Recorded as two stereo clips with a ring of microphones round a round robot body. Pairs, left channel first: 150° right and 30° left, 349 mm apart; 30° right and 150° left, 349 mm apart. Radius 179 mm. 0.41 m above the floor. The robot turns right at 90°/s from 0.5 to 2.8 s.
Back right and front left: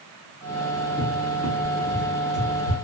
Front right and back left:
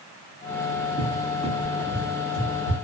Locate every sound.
1.0 s a cupboard door: 155° left, 0.9 m; by 2.8 s 45° right, 0.9 m